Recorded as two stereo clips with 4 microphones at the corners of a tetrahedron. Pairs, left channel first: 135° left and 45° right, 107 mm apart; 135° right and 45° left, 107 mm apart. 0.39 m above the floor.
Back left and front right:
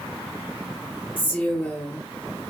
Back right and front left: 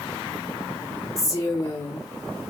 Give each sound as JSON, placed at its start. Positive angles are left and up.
{"t": 1.2, "sound": "a woman speaking", "azimuth_deg": -170, "distance_m": 0.9}